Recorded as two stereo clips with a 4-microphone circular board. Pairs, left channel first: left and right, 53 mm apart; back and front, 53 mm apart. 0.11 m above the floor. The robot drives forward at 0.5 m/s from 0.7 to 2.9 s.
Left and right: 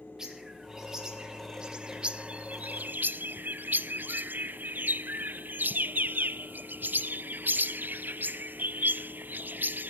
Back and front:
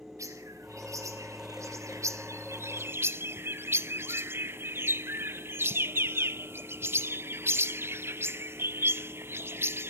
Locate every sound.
0.2 s a bird: 10° right, 1.5 m; by 9.9 s 40° right, 0.5 m